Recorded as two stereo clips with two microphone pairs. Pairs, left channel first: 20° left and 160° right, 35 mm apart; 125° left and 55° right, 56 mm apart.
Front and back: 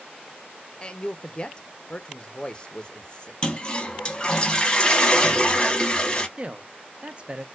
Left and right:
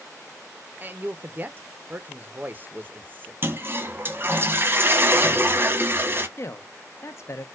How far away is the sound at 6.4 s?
About 0.5 m.